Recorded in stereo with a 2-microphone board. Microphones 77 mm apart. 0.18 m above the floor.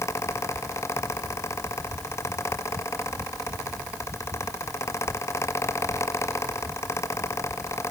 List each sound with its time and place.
Only background noise.